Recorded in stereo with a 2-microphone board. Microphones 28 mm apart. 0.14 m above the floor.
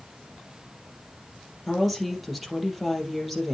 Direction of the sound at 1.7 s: 5° right (ahead or behind).